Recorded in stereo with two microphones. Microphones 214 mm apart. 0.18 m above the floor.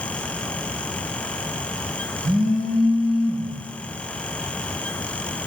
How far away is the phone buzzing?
About 7.5 m.